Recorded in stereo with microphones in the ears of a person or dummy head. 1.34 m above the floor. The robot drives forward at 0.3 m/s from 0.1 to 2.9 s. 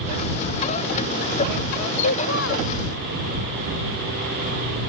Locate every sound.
2.0 s a child speaking: 70° left (ahead or behind); by 2.7 s 65° left (ahead or behind)